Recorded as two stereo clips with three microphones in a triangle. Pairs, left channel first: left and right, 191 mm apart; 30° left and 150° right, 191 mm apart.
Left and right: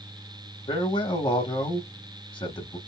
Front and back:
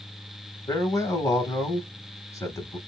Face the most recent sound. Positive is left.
turn(degrees=75)